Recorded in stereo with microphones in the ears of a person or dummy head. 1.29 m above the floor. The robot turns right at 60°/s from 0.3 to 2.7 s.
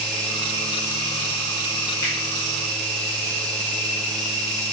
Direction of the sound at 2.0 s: 20° left (ahead or behind).